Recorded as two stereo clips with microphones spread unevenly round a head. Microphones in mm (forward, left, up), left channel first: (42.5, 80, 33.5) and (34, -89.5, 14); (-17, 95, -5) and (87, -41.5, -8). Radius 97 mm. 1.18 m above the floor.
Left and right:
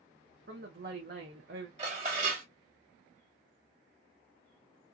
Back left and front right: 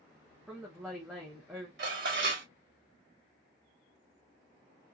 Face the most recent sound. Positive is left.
turn(degrees=-40)